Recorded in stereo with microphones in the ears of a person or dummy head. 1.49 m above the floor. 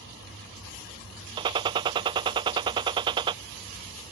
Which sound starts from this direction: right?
A gunshot, at 1.4 s.